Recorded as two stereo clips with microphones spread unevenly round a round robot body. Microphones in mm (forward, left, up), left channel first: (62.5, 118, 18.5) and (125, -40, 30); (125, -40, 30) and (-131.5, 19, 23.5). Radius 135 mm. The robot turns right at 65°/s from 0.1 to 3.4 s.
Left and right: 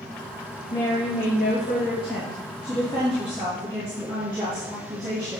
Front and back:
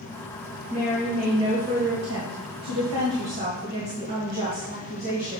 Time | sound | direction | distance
0.7 | a woman speaking | 40° left | 2.5 m